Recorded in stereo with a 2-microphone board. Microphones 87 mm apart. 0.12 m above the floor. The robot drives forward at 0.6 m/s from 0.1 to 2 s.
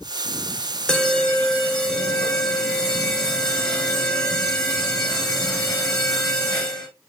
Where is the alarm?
10° left (ahead or behind), 1.2 m; by 6.9 s 5° left (ahead or behind), 1.6 m.